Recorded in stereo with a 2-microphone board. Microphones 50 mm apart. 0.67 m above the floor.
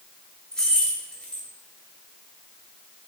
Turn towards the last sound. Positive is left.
turn(degrees=15)  # may be behind; listen again after turning